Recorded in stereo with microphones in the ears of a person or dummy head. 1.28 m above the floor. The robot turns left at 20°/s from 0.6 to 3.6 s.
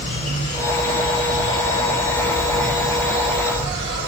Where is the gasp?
I don't hear a gasp.